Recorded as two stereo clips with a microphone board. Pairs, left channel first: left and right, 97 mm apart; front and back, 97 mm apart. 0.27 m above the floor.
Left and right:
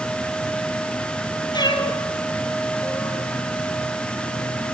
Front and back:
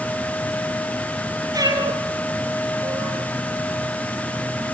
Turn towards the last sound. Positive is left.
turn(degrees=175)